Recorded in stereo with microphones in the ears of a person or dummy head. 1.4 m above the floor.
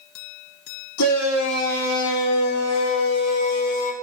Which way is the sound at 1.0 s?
70° left (ahead or behind).